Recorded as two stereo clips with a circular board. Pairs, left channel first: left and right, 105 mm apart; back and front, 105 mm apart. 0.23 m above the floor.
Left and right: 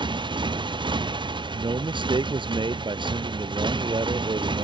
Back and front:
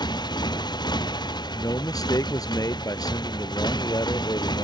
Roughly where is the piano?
I don't hear a piano.